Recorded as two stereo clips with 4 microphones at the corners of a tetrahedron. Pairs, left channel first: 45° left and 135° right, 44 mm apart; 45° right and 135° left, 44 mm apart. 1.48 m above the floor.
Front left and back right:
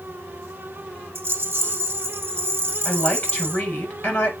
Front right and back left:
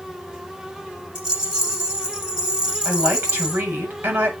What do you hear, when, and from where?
1.1 s a rattle: 155° right, 1.8 m
2.9 s a woman speaking: 110° left, 6 m